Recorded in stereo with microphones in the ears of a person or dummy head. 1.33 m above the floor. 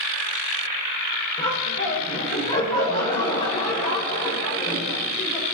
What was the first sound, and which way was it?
Laughter, 30° left (ahead or behind).